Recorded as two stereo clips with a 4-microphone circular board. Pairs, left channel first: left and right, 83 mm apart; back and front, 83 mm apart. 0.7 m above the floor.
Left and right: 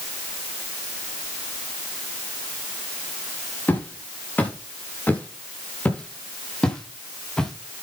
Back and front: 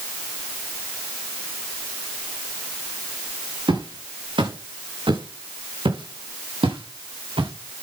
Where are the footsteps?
25° left, 7.5 m; by 7.5 s 10° left, 6 m.